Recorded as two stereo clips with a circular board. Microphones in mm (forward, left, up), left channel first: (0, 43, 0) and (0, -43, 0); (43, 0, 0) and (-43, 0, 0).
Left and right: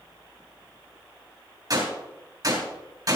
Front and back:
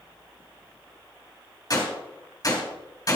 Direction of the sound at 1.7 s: 45° right.